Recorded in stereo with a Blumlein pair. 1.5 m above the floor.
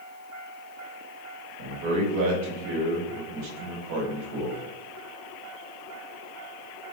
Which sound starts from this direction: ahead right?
A man speaking, at 1.6 s.